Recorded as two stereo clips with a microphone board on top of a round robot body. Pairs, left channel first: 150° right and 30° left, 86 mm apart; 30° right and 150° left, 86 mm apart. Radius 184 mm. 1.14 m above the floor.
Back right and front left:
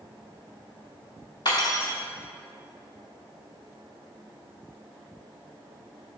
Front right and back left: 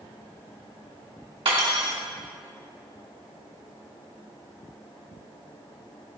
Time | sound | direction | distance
1.4 | cutlery clinking | 170° left | 0.6 m